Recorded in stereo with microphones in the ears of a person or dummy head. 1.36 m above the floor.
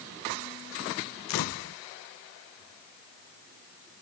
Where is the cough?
No cough in this recording.